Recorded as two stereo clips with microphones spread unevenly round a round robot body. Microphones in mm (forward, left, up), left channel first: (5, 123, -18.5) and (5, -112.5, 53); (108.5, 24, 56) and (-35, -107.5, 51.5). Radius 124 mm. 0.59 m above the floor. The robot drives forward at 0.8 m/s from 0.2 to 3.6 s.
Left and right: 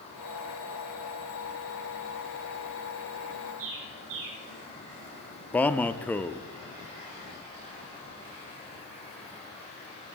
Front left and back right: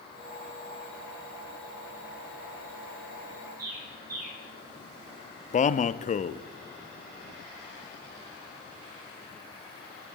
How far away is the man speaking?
About 0.6 m.